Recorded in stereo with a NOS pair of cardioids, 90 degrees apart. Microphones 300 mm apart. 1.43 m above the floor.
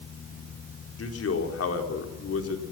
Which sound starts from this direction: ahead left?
A man speaking, at 1.0 s.